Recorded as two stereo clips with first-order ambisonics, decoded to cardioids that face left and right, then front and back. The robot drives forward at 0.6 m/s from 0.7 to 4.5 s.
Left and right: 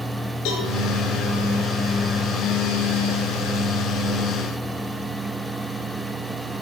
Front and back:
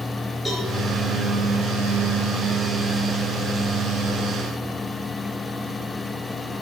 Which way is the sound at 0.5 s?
85° left.